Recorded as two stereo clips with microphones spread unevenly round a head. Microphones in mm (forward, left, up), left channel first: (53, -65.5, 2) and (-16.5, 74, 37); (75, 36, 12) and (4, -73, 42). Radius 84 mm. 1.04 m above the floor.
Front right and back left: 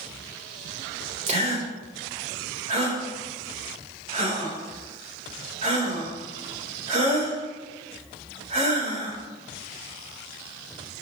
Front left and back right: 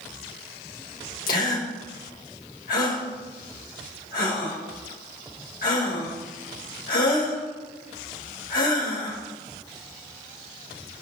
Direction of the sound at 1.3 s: 70° left.